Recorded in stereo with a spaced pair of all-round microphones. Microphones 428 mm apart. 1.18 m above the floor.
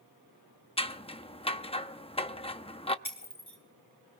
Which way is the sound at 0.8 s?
15° left (ahead or behind).